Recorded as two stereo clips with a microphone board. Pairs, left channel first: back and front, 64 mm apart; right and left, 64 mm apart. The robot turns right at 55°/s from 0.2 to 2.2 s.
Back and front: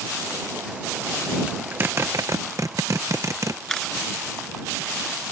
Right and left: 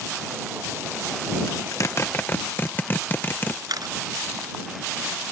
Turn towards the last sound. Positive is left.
turn(degrees=100)